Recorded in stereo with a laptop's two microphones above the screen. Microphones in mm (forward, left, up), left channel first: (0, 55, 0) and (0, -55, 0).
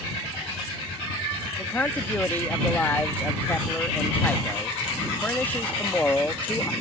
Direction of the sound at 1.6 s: 15° left (ahead or behind).